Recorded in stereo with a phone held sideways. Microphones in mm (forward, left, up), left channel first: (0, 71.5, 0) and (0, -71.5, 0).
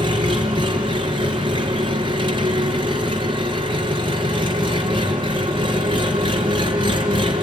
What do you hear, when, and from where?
0.0 s an engine running: 35° right (ahead or behind), 4 m